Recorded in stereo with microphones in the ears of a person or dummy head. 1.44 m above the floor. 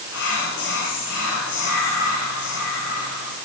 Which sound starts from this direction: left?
Whispering, at 0.1 s.